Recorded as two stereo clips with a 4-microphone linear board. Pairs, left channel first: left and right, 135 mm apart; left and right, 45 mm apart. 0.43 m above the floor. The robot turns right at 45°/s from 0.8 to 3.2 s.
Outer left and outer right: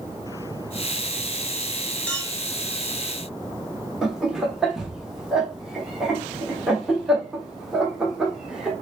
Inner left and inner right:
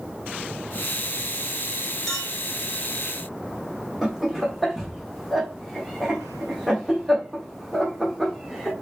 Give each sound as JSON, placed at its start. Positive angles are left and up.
{"t": 2.1, "sound": "a clink", "side_deg": 10, "distance_m": 1.1}
{"t": 4.0, "sound": "laughter", "side_deg": -5, "distance_m": 0.9}